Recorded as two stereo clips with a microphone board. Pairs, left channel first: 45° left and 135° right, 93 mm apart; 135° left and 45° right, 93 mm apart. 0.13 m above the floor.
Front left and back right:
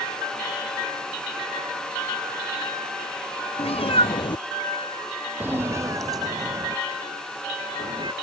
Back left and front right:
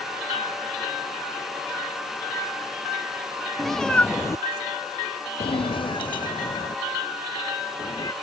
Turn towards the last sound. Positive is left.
turn(degrees=-175)